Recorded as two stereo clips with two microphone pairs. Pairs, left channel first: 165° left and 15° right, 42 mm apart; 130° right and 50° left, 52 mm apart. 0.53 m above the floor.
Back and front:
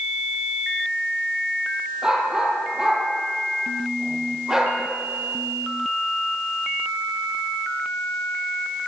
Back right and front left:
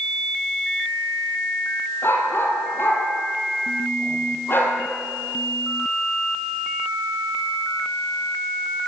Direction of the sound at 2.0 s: 85° right.